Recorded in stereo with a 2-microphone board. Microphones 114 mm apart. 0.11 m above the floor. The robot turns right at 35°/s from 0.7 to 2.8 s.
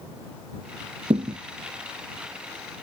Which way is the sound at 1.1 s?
85° right.